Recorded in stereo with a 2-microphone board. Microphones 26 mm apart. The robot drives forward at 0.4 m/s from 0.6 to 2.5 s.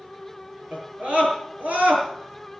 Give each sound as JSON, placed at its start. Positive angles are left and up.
{"t": 0.7, "sound": "a scream", "side_deg": -65, "distance_m": 6.5}